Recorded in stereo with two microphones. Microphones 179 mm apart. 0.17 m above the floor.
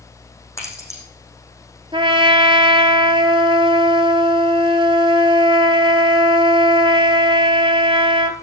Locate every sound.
0.6 s keys jangling: 15° left (ahead or behind), 5.5 m
1.9 s a trumpet: 30° right (ahead or behind), 1.3 m